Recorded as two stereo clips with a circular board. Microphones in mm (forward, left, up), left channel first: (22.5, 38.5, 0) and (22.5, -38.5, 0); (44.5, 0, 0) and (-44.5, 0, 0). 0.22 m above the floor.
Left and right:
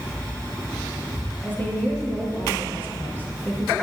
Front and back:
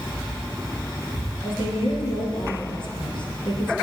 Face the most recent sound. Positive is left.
turn(degrees=25)